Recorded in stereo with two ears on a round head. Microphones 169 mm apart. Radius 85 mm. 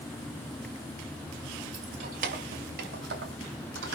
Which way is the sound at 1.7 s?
40° right (ahead or behind).